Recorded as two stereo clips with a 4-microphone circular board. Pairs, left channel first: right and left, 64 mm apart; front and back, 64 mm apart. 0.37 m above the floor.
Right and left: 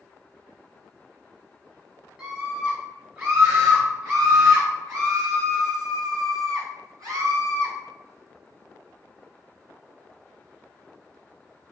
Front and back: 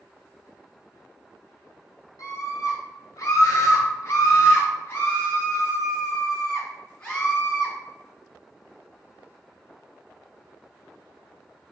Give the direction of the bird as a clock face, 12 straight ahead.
I don't hear a bird.